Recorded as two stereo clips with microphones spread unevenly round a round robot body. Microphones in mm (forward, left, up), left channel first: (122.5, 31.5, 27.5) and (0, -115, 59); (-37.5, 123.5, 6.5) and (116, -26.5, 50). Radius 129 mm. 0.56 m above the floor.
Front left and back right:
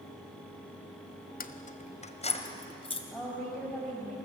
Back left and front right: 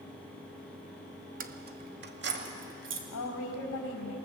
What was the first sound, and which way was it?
Keys jangling, 10° left.